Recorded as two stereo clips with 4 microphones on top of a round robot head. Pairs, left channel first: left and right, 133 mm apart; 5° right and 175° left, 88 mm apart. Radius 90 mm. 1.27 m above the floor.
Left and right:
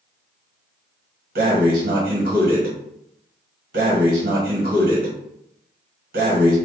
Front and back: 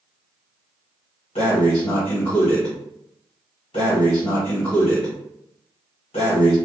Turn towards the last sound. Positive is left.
turn(degrees=-55)